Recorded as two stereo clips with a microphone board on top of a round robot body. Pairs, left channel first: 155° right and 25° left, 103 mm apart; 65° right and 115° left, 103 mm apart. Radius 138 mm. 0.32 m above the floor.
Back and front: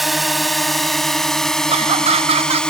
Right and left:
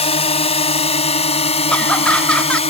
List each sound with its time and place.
0.0 s a drone: 65° right; by 2.7 s 75° right
1.7 s laughter: 15° left